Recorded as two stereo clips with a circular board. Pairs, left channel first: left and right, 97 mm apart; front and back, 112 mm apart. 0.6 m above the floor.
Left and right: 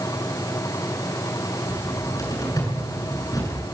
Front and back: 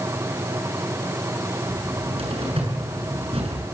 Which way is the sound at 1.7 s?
145° left.